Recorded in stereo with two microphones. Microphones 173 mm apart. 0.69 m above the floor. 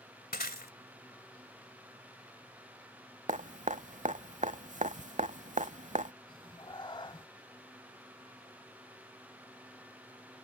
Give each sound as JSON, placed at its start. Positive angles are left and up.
{"t": 0.3, "sound": "breaking glass", "side_deg": 70}
{"t": 3.3, "sound": "dripping", "side_deg": -50}
{"t": 6.3, "sound": "a cat meowing", "side_deg": 30}